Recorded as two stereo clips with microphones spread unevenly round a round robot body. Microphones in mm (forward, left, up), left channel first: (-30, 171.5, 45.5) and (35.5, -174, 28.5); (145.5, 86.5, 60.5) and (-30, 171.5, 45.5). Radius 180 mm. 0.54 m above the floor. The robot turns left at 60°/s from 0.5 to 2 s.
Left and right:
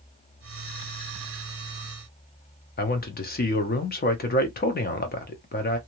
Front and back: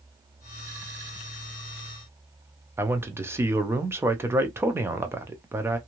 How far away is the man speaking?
About 0.7 m.